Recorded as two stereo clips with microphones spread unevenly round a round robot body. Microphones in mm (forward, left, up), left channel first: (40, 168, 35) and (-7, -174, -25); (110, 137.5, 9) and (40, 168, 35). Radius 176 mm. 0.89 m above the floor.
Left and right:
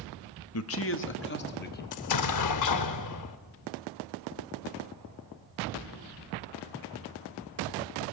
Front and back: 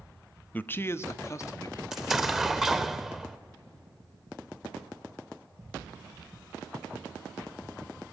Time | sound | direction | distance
0.5 | a man speaking | 30° left | 1.0 m
1.9 | an explosion | 85° left | 0.9 m